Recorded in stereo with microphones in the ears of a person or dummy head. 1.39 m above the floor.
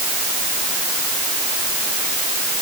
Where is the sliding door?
No sliding door in this recording.